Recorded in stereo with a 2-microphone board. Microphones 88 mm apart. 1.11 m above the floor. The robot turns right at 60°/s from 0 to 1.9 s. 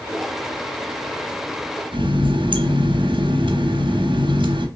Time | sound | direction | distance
1.9 | a running tap | 70° right (ahead or behind) | 0.7 m